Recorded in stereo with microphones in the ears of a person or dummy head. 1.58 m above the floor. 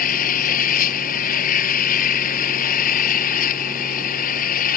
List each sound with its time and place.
0.0 s an engine running: 45° left (ahead or behind)